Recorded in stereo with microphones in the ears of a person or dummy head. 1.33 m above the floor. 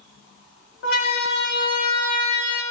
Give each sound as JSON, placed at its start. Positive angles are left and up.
{"t": 0.8, "sound": "a siren", "side_deg": 75, "distance_m": 2.5}